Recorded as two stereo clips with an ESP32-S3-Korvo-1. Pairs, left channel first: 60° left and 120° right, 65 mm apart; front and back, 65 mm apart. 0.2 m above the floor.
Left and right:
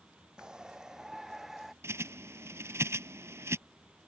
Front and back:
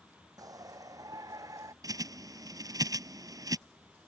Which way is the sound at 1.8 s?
165° right.